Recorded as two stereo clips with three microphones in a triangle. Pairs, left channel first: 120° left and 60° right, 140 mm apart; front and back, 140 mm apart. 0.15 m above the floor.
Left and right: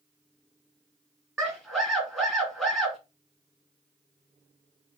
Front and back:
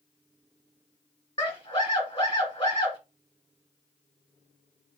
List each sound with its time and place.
1.4 s a scream: 30° left, 1.5 m